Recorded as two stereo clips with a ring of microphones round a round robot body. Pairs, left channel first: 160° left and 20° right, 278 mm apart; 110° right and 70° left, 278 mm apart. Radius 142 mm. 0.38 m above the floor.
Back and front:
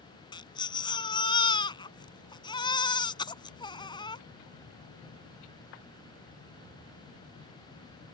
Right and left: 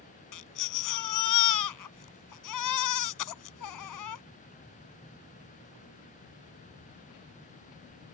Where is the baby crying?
130° right.